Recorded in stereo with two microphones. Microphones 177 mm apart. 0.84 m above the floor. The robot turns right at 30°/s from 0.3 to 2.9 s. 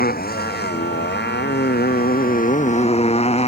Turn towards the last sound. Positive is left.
turn(degrees=140)